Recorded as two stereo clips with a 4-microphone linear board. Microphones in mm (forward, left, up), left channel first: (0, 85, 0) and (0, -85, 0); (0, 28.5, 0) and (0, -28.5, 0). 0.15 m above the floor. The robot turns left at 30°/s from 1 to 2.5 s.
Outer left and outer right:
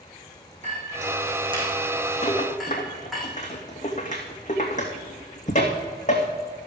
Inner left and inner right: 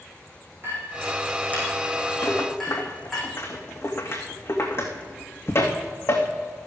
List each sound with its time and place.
0.6 s a clink: 45° right (ahead or behind), 5 m; by 3.2 s centre (ahead or behind), 5 m
2.2 s a rattle: 35° left (ahead or behind), 2.5 m; by 6.3 s 45° left (ahead or behind), 2.5 m